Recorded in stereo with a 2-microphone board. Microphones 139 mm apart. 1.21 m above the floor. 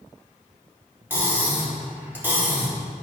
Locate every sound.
1.1 s cutlery clinking: 15° right (ahead or behind), 3 m